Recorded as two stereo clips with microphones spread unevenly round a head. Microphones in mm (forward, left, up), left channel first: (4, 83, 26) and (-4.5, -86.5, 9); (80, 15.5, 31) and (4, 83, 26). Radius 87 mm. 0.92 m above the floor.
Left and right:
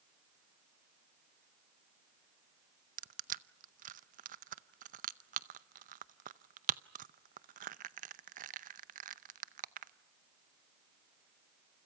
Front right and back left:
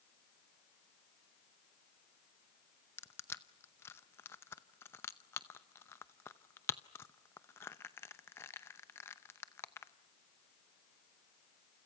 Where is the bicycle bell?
No bicycle bell in this recording.